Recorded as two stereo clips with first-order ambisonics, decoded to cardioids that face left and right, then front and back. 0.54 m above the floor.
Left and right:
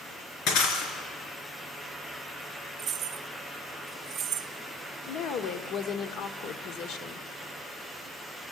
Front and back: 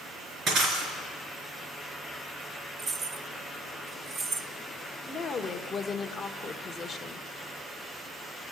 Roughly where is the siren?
I don't hear a siren.